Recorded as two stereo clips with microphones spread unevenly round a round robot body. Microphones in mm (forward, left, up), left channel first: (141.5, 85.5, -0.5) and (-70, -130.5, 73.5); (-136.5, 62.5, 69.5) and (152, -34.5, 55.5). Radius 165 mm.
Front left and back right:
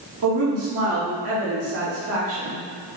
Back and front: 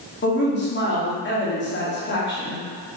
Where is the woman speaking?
170° right, 1.5 m.